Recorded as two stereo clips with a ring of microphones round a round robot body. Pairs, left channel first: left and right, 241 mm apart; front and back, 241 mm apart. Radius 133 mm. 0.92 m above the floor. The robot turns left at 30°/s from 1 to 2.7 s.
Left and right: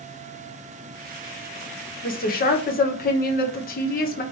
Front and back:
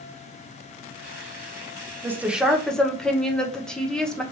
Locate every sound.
2.0 s a woman speaking: 105° left, 0.8 m; by 4.2 s 85° left, 0.8 m